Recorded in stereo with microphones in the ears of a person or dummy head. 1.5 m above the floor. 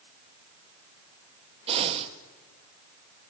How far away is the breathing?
About 1.3 m.